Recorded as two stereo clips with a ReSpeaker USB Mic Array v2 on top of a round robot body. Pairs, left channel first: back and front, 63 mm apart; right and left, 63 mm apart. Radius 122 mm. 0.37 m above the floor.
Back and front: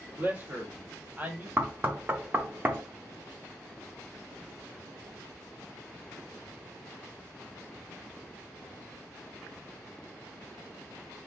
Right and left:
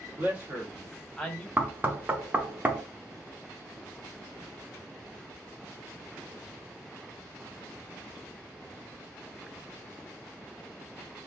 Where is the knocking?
45° left, 0.8 m.